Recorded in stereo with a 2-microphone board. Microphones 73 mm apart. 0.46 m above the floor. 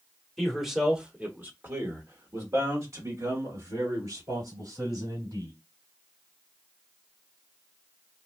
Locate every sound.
0.4 s a man speaking: 5° left (ahead or behind), 1.1 m; by 5.5 s 70° right (ahead or behind), 3.5 m